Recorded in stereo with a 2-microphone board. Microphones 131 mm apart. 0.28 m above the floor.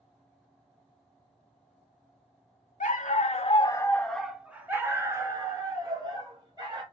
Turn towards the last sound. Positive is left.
turn(degrees=-35)  # may be behind; listen again after turning